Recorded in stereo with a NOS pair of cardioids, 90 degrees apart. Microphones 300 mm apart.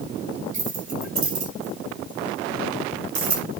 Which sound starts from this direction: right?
Keys jangling, at 0.5 s.